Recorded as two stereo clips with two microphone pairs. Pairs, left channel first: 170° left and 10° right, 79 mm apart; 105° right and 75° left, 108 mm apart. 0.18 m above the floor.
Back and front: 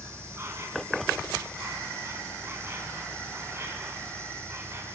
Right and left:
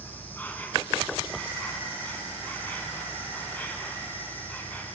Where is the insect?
40° right, 3 m.